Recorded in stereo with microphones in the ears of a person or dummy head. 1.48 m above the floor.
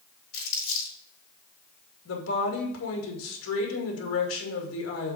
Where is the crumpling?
60° left (ahead or behind), 4 m.